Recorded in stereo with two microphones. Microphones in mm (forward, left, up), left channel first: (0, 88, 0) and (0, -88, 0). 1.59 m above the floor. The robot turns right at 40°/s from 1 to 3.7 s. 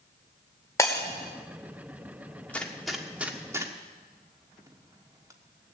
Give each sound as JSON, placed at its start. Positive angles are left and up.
{"t": 0.8, "sound": "breaking glass", "side_deg": 15, "distance_m": 1.9}
{"t": 2.5, "sound": "a gunshot", "side_deg": 10, "distance_m": 1.3}